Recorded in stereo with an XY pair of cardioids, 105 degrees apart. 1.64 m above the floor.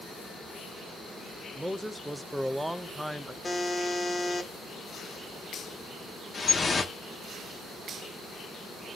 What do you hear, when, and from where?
1.6 s a man speaking: 5° right, 0.8 m
3.4 s a buzzer: 25° left, 1.6 m
6.3 s dripping: 35° left, 1.4 m